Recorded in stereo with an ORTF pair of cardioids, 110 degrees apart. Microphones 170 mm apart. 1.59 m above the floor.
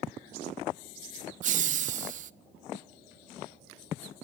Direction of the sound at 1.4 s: 45° right.